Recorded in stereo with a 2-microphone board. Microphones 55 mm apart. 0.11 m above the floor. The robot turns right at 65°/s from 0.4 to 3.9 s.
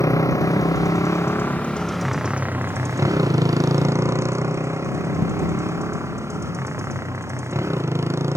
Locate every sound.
0.0 s a motorcycle: 70° left (ahead or behind); by 8.4 s 55° right (ahead or behind)